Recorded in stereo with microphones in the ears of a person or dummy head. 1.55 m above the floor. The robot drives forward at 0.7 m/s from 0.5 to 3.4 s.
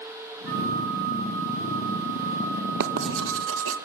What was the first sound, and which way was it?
A flute, 60° right (ahead or behind).